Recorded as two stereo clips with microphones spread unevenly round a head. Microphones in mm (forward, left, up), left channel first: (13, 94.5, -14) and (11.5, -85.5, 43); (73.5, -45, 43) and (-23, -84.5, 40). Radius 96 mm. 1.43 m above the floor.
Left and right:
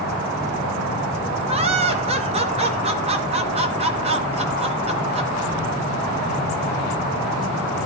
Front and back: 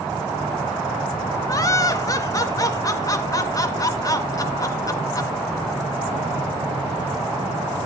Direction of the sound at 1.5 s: 35° right.